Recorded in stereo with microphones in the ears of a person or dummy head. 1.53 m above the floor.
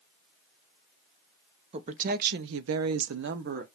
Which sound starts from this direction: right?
A woman speaking, at 1.7 s.